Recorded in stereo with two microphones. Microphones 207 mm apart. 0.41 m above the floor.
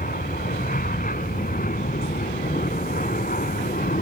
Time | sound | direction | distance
0.0 | an aircraft | 45° left (ahead or behind) | ?